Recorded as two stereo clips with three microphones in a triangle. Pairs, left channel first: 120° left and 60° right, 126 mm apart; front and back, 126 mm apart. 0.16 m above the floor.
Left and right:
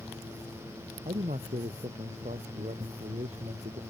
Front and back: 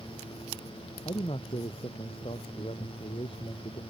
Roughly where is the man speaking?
Ahead right.